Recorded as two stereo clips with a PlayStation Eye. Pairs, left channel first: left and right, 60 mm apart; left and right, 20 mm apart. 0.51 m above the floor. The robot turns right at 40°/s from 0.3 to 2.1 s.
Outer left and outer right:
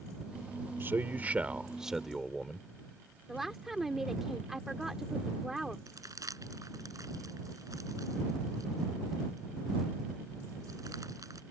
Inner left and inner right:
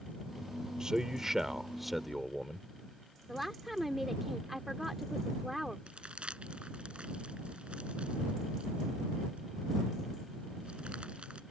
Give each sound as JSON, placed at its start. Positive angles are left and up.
{"t": 0.8, "sound": "a man speaking", "azimuth_deg": -55}
{"t": 3.3, "sound": "a woman speaking", "side_deg": -5}
{"t": 5.9, "sound": "crumpling", "side_deg": -80}